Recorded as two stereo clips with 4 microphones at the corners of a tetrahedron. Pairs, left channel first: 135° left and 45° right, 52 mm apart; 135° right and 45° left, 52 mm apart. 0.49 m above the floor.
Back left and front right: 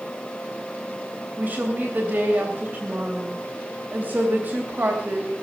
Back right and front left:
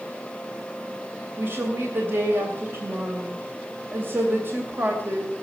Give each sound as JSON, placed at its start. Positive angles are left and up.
{"t": 1.4, "sound": "a woman speaking", "azimuth_deg": 5, "distance_m": 3.0}